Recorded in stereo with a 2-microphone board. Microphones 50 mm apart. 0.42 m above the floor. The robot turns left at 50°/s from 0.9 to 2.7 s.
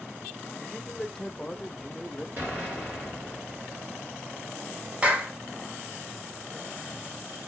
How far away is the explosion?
About 3 m.